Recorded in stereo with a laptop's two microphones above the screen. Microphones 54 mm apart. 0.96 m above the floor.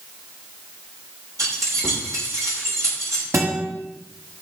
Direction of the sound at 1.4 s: 85° right.